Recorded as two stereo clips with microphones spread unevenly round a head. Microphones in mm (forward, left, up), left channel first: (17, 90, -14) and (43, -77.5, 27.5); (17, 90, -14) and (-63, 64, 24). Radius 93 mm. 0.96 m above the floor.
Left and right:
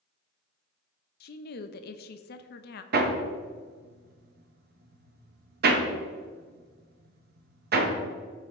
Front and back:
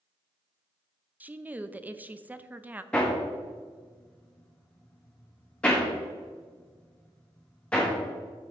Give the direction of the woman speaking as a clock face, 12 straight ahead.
8 o'clock.